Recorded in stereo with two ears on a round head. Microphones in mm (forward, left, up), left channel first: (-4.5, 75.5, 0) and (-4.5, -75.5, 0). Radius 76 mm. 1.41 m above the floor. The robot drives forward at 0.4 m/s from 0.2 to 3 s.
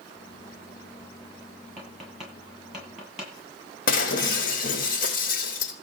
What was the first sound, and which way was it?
Tapping, 5° right (ahead or behind).